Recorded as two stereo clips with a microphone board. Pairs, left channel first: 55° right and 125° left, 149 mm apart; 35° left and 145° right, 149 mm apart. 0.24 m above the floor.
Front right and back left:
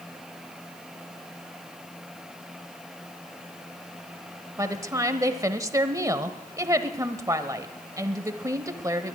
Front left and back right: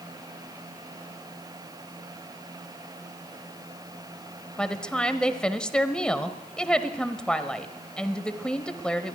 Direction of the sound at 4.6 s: 110° left.